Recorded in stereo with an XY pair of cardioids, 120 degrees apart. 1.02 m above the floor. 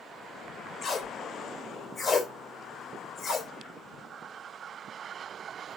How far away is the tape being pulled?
About 3.5 m.